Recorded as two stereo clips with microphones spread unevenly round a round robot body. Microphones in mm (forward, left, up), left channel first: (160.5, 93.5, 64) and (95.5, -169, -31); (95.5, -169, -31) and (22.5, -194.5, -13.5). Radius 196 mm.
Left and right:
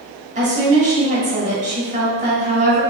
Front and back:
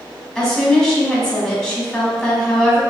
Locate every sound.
0.3 s a woman speaking: 55° right, 1.9 m